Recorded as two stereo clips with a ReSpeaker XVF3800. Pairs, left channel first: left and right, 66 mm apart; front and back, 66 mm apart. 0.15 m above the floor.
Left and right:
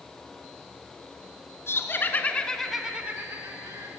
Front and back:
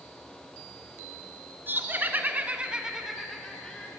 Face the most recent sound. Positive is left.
turn(degrees=-75)